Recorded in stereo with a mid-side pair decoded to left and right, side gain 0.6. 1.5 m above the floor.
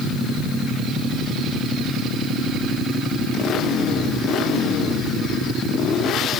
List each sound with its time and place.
Only background noise.